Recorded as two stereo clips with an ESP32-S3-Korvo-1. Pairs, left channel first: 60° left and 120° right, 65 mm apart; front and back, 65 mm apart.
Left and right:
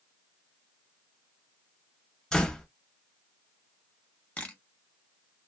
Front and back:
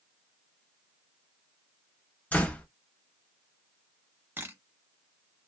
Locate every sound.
2.3 s a door slam: straight ahead, 0.6 m
4.4 s a camera shutter: 130° left, 0.8 m